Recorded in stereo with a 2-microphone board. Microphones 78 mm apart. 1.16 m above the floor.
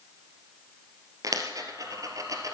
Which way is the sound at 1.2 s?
50° right (ahead or behind).